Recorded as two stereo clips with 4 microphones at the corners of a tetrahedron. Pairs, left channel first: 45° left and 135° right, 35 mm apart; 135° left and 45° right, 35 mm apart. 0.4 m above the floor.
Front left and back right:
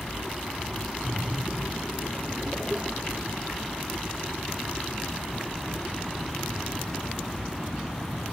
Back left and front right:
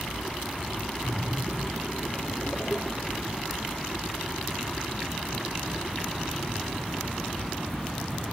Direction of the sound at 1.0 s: 175° right.